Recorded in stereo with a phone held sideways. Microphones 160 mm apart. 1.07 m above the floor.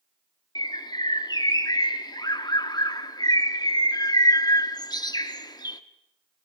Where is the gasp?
I don't hear a gasp.